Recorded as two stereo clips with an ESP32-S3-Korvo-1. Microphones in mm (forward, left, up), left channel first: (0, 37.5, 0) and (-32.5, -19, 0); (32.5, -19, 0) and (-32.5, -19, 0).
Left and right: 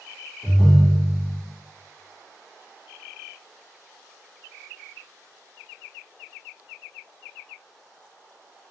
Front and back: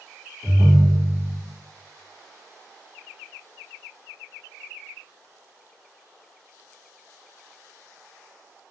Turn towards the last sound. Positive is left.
turn(degrees=140)